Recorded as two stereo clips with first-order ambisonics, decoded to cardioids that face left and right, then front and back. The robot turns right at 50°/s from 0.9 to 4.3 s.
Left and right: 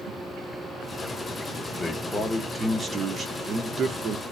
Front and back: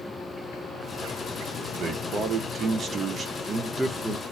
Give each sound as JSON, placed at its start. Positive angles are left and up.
{"t": 1.7, "sound": "a man speaking", "azimuth_deg": 155, "distance_m": 0.7}